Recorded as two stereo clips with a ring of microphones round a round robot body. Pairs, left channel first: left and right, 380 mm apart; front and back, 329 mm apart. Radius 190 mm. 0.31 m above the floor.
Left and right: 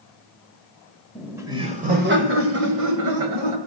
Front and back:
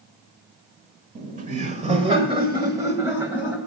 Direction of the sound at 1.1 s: Straight behind.